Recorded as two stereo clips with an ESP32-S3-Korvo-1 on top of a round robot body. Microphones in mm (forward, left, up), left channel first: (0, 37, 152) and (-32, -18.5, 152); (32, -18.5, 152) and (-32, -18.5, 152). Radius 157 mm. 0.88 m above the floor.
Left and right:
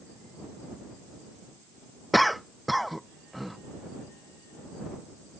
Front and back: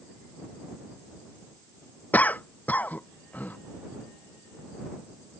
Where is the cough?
30° right.